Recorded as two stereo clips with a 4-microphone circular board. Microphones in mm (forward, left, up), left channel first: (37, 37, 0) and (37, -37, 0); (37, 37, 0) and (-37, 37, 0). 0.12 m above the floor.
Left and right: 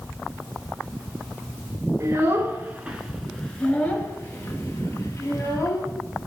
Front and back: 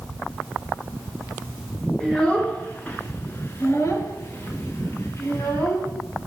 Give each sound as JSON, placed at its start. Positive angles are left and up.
{"t": 2.0, "sound": "a child speaking", "azimuth_deg": -75, "distance_m": 1.1}